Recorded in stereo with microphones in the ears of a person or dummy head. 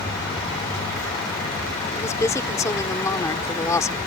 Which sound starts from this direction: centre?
A woman speaking, at 1.9 s.